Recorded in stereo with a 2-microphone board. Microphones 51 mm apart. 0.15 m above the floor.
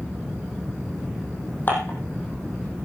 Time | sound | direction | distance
1.7 | dishes clattering | 40° left (ahead or behind) | 4.5 m